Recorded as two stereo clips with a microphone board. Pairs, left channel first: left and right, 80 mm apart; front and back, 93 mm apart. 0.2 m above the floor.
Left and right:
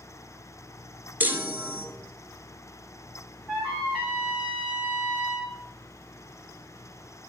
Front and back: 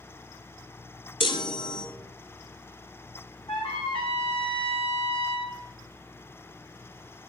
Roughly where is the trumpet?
Ahead.